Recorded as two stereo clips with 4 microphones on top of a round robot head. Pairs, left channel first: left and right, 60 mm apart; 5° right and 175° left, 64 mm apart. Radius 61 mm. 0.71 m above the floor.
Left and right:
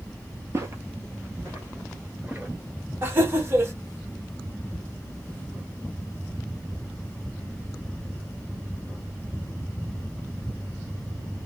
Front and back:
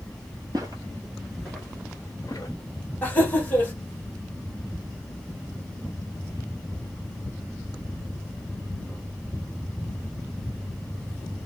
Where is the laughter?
55° right, 1.2 m.